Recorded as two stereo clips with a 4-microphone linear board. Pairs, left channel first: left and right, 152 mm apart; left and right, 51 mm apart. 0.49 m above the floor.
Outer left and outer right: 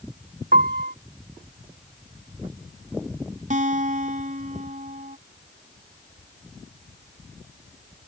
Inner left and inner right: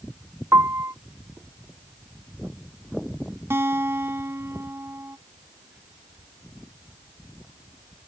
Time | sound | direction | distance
0.5 | a piano | 80° right | ?
3.5 | a guitar | 60° right (ahead or behind) | ?